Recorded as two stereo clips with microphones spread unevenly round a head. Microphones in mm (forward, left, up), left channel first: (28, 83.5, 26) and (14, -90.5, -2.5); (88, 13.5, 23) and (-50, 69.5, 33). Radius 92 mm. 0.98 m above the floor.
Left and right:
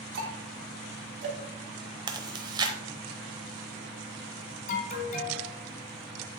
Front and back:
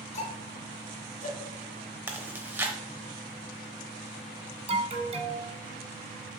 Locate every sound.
0.1 s ticking: 75° right, 2 m
2.1 s chewing: 155° right, 0.8 m
4.7 s an alarm: 125° left, 1.6 m